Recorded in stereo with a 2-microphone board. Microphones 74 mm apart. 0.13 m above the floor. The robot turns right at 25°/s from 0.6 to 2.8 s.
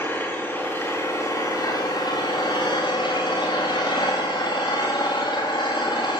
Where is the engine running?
30° left, 9.5 m; by 6.2 s 85° left, 9.5 m.